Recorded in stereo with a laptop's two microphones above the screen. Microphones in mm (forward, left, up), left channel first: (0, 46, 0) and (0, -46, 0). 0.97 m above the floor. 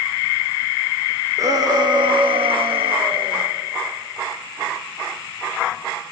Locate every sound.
1.4 s a shout: 40° right (ahead or behind), 2.5 m; by 3.4 s 65° right (ahead or behind), 2.5 m